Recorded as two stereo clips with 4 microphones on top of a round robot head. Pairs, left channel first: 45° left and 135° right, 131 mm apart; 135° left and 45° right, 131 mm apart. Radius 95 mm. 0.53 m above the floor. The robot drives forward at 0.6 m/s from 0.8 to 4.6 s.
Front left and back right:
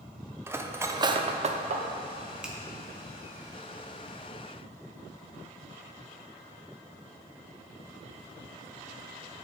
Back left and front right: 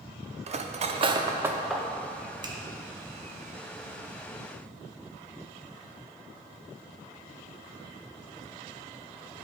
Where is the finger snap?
55° right, 1.0 m; by 2.6 s 60° right, 1.0 m.